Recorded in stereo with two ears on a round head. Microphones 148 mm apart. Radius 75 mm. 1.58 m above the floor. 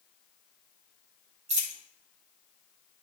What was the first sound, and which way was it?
A dropped coin, 40° right (ahead or behind).